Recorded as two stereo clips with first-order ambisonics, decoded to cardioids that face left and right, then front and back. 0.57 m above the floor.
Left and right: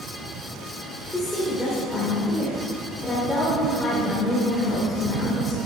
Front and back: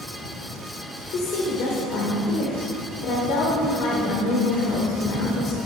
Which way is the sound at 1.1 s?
5° left.